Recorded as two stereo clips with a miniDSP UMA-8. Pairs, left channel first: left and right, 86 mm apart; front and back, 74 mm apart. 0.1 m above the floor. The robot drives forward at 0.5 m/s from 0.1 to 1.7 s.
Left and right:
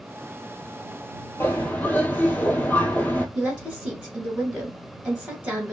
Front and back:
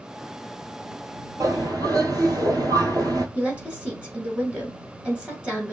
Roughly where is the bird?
Behind left.